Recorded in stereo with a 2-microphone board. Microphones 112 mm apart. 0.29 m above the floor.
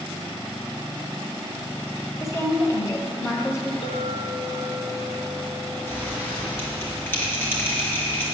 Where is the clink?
65° left (ahead or behind), 1.6 m.